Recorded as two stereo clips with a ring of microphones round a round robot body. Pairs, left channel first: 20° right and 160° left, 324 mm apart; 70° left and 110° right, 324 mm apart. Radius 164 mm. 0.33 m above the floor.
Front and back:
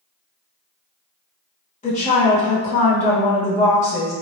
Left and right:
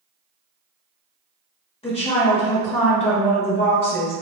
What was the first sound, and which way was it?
A woman speaking, 20° left.